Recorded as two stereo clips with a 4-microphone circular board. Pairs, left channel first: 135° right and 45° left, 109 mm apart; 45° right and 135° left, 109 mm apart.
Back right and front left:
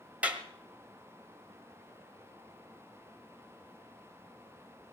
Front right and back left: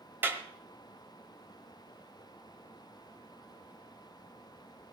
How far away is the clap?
About 1.3 m.